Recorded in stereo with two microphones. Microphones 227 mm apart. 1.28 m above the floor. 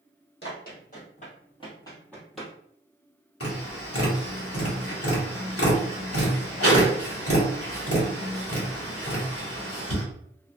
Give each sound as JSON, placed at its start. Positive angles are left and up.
{"t": 0.4, "sound": "running footsteps", "side_deg": 50, "distance_m": 1.8}
{"t": 3.4, "sound": "tapping", "side_deg": 80, "distance_m": 1.3}